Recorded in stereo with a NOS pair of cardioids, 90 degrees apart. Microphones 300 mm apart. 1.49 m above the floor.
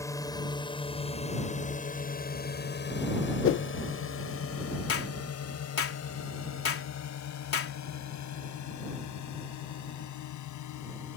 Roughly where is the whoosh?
Ahead left.